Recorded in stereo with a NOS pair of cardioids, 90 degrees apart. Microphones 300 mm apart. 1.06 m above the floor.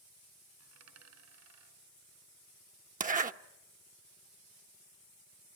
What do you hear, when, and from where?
0.6 s a dropped coin: 70° right, 4 m
3.0 s a zipper: 30° right, 1.1 m